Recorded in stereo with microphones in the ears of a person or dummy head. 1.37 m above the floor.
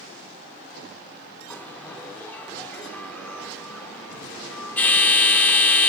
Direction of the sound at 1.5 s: 5° left (ahead or behind).